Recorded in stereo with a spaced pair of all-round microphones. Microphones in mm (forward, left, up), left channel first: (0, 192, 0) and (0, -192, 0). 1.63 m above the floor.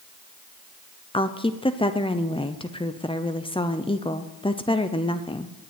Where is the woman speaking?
15° left (ahead or behind), 0.6 m.